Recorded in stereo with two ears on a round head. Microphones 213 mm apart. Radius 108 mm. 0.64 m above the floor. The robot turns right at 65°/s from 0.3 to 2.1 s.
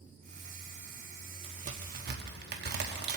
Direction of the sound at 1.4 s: 25° right (ahead or behind).